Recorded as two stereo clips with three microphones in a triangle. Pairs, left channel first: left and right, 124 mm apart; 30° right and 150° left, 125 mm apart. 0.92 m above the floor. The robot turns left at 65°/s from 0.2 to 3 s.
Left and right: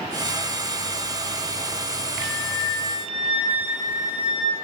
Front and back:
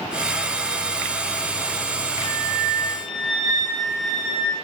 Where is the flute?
95° left, 5 m; by 4.5 s 45° left, 5 m.